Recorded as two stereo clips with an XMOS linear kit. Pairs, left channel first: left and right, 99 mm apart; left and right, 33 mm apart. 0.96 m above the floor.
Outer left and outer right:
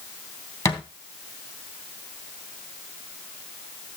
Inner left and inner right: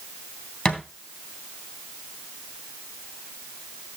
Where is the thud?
30° left (ahead or behind), 2.5 m.